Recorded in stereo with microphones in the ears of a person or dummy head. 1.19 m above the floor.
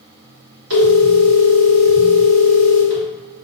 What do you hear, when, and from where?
0.7 s a phone ringing: 85° right, 1.6 m